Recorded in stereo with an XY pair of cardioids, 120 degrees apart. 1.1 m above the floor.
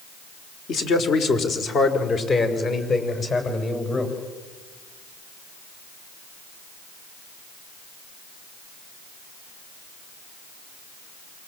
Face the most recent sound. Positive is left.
turn(degrees=35)